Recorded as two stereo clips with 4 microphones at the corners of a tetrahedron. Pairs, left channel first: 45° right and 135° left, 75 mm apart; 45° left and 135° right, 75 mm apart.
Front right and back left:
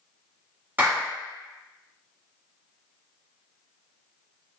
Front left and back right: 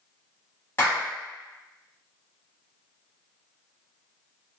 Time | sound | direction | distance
0.8 | a clap | 85° left | 1.3 m